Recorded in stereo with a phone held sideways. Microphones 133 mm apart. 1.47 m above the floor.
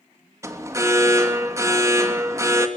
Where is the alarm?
25° right (ahead or behind), 2.5 m.